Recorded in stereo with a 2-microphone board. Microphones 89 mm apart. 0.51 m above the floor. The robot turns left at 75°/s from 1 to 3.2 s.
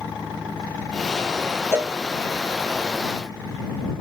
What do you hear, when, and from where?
1.7 s a cowbell: 30° right (ahead or behind); by 2.0 s 20° right (ahead or behind)